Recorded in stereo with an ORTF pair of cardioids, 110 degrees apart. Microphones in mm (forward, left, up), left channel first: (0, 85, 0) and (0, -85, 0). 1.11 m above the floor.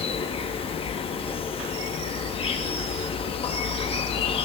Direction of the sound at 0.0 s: 35° left.